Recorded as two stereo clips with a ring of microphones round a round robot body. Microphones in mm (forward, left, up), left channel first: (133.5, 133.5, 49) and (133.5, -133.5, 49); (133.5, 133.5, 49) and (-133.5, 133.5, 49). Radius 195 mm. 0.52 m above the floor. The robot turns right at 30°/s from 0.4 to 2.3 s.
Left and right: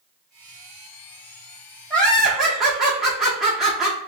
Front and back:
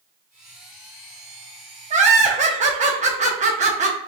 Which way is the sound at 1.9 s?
170° left.